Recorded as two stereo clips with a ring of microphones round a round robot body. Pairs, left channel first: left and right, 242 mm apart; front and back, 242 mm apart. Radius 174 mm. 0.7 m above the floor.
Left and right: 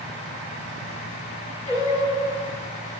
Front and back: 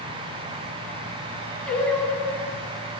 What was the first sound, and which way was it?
Singing, 85° left.